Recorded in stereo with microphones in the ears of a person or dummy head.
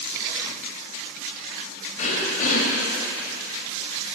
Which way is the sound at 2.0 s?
45° left (ahead or behind).